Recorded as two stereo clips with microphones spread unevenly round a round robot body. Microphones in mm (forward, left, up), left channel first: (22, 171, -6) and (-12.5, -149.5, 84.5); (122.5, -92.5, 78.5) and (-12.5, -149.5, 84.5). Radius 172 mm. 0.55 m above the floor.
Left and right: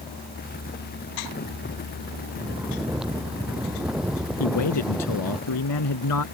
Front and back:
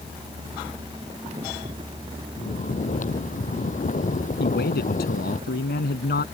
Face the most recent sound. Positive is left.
turn(degrees=45)